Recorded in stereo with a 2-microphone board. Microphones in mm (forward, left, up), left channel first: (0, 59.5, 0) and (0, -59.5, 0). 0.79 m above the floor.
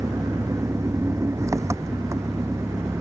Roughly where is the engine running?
Right.